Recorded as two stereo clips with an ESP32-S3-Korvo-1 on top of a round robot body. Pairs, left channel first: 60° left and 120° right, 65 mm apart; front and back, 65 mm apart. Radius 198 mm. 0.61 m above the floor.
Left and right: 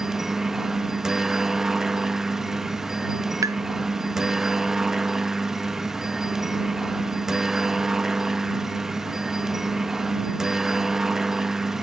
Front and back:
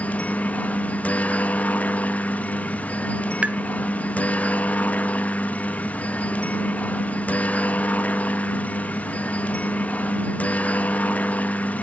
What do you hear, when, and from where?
0.0 s a helicopter: 40° right
3.4 s tapping: 110° right